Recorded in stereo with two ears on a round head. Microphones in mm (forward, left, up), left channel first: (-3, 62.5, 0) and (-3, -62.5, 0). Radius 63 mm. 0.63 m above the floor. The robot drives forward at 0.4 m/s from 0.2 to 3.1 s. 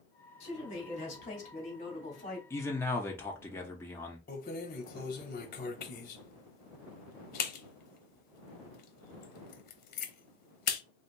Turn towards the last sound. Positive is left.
turn(degrees=75)  # may be behind; listen again after turning